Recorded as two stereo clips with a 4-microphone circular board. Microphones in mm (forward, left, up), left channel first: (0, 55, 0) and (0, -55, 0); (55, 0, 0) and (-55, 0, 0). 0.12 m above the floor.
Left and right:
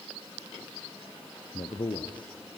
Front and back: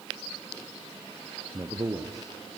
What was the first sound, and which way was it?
A man speaking, 125° left.